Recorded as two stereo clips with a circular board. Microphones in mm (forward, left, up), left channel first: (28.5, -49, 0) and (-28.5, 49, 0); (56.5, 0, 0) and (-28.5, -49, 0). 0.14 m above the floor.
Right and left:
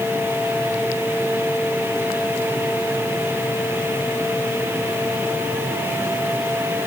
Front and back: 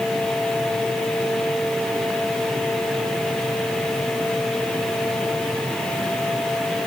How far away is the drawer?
No drawer in this recording.